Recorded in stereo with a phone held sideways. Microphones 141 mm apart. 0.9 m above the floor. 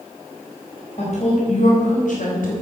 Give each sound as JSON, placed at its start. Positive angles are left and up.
{"t": 1.0, "sound": "a woman speaking", "side_deg": 50, "distance_m": 4.5}